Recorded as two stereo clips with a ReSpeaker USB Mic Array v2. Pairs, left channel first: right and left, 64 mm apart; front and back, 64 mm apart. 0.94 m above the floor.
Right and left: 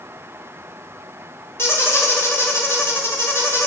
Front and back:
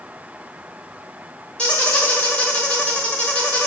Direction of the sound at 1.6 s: 65° right.